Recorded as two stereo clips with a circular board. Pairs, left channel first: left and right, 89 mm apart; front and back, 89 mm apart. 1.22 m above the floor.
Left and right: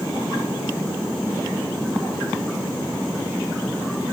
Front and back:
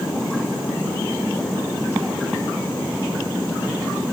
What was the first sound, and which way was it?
Only background noise.